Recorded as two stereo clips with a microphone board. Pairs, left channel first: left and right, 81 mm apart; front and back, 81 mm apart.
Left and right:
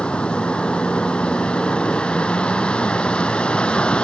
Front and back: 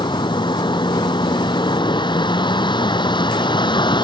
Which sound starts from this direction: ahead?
A vehicle, at 0.0 s.